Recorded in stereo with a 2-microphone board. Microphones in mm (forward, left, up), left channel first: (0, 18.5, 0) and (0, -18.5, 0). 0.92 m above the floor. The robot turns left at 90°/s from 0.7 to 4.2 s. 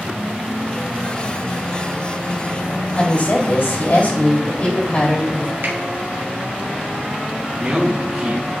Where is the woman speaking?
145° left, 2.5 m; by 5.5 s 35° left, 2.5 m.